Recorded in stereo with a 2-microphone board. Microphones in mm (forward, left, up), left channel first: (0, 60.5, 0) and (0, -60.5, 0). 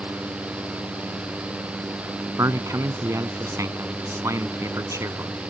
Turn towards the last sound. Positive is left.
turn(degrees=-25)  # may be behind; listen again after turning